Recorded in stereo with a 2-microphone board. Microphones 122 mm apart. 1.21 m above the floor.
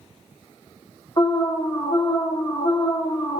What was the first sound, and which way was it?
An alarm, 35° left (ahead or behind).